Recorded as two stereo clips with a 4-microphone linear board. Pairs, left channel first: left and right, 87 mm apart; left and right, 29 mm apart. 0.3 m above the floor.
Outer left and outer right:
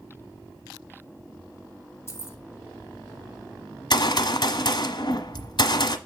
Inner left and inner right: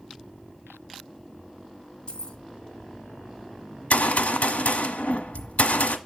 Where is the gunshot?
65° left (ahead or behind), 1.2 m.